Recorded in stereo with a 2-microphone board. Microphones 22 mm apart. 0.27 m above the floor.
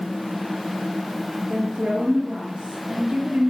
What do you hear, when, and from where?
1.5 s a woman speaking: 50° right (ahead or behind), 4 m